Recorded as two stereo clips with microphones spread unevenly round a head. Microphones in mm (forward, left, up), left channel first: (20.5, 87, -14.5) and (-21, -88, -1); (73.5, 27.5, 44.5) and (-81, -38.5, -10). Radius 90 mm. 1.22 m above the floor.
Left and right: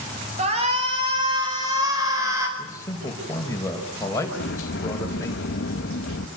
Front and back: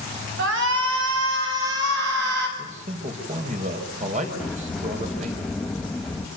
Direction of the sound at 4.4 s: 100° left.